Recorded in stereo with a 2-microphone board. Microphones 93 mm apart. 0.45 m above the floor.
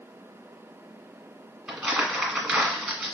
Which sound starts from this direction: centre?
Crumpling, at 1.7 s.